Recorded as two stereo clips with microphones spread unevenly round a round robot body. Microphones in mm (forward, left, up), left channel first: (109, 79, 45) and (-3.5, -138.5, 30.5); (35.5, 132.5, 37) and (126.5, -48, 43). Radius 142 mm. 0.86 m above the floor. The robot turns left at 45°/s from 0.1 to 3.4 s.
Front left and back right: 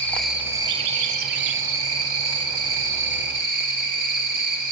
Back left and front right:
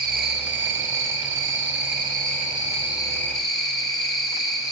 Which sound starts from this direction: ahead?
An insect, at 0.0 s.